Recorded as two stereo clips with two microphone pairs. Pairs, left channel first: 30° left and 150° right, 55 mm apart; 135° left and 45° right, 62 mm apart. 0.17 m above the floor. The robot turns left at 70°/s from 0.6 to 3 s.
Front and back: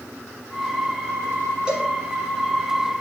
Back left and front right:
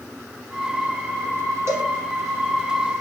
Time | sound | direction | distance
1.7 | a cowbell | 80° right | 1.7 m